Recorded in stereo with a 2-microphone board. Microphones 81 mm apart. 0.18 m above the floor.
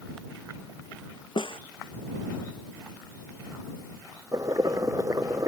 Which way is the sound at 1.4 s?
80° left.